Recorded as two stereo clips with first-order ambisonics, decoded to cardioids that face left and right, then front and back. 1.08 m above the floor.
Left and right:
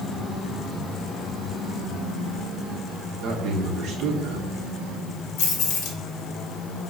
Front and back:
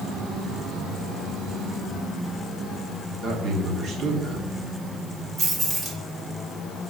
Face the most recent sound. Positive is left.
turn(degrees=120)